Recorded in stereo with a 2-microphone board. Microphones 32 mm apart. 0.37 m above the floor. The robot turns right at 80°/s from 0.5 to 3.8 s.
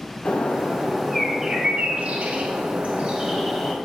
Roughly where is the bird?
Behind left.